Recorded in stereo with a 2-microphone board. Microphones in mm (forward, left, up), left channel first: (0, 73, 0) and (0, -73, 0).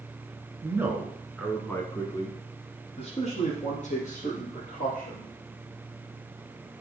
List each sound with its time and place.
0.6 s a man speaking: 20° right (ahead or behind), 1.9 m; by 5.3 s 70° left (ahead or behind), 4 m